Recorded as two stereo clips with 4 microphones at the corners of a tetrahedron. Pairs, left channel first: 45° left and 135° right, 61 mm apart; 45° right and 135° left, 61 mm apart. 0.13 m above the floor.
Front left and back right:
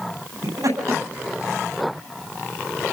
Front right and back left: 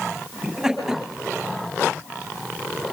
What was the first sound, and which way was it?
Laughter, 140° right.